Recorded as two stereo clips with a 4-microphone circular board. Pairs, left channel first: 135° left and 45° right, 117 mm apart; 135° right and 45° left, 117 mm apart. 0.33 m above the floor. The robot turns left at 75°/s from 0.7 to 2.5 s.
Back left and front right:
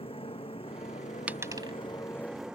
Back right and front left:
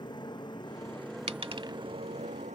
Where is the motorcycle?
175° left; by 2.5 s 40° left.